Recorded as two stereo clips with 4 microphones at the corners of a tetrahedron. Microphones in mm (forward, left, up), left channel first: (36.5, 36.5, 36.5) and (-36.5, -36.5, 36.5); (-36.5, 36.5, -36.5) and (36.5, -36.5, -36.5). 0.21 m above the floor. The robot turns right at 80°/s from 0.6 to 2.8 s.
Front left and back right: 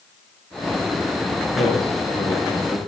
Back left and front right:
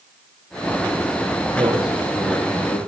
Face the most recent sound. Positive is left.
turn(degrees=90)